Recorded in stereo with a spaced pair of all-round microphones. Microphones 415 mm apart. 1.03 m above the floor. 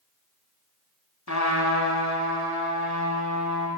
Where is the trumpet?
40° left (ahead or behind), 1.2 m.